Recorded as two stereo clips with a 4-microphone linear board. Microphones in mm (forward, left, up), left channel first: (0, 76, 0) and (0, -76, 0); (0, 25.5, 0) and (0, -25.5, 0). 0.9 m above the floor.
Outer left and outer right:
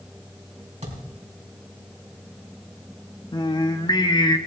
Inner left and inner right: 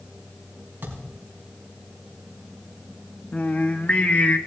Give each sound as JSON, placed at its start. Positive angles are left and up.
{"t": 0.8, "sound": "a thud", "side_deg": -45, "distance_m": 4.0}
{"t": 3.3, "sound": "singing", "side_deg": 30, "distance_m": 0.9}